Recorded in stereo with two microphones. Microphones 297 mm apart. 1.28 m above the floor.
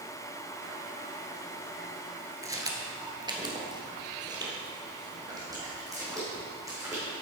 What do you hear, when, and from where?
2.4 s footsteps: 10° right (ahead or behind), 1.3 m